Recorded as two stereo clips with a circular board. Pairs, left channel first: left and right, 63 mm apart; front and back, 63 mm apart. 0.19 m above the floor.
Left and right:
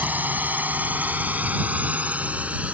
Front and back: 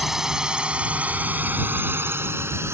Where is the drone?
100° right; by 2.7 s 150° right.